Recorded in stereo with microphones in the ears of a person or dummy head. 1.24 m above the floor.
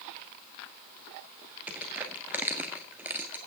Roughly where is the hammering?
No hammering in this recording.